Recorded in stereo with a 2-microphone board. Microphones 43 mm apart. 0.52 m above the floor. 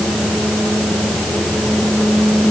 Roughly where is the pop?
No pop in this recording.